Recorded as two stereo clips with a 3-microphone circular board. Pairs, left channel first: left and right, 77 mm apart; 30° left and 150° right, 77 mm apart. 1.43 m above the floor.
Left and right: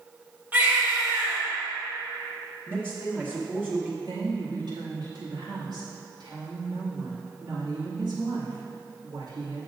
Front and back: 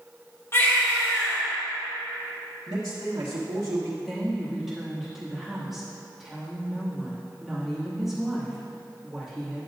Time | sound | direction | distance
0.5 | a baby crying | 25° right | 2.5 m
2.7 | a man speaking | 155° right | 1.5 m
4.0 | a woman speaking | 65° right | 2.5 m